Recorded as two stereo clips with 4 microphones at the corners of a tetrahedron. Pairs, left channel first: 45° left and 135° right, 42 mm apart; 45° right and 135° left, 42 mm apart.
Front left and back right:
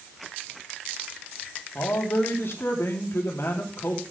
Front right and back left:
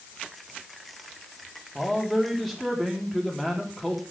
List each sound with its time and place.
1.8 s a man speaking: 40° left, 3.5 m